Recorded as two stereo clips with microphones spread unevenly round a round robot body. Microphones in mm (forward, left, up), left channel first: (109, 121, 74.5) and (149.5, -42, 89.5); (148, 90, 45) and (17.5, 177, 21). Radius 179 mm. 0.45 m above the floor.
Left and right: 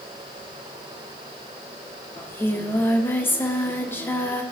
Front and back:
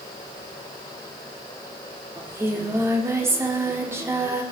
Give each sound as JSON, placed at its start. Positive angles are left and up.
{"t": 2.2, "sound": "singing", "azimuth_deg": 145, "distance_m": 1.2}